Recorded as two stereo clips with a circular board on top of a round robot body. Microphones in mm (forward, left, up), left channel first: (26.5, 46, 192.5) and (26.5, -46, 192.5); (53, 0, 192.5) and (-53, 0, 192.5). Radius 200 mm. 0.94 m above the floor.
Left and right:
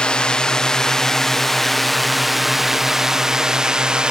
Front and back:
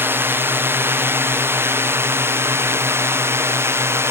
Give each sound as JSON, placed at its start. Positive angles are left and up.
{"t": 0.0, "sound": "a drone", "azimuth_deg": 155}